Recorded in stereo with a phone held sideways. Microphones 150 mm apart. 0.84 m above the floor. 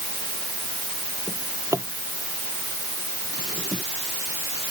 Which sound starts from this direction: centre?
A drawer, at 1.3 s.